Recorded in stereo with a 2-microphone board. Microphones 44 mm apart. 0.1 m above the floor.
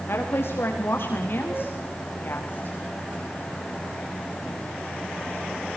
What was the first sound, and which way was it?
A woman speaking, 65° left (ahead or behind).